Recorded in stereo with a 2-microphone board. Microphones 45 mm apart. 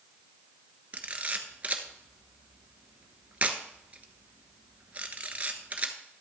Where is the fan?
I don't hear a fan.